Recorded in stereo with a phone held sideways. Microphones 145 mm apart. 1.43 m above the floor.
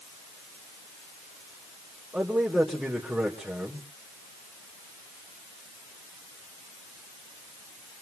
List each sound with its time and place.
2.1 s a man speaking: 5° right (ahead or behind), 4 m